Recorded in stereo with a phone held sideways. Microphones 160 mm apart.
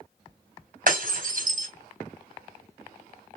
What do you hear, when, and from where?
0.9 s breaking glass: 60° right (ahead or behind), 3 m